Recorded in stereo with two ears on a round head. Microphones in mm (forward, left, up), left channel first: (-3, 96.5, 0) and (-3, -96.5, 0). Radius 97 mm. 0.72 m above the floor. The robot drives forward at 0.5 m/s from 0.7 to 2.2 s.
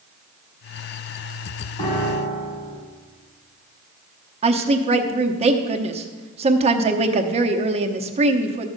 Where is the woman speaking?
30° right (ahead or behind), 0.9 m.